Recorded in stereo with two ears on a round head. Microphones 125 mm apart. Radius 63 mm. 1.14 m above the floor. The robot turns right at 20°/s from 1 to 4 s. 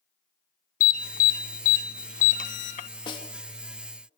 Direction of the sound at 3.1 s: 35° left (ahead or behind).